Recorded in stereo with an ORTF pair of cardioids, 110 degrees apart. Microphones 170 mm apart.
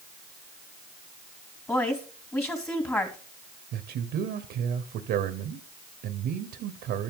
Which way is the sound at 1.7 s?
15° left.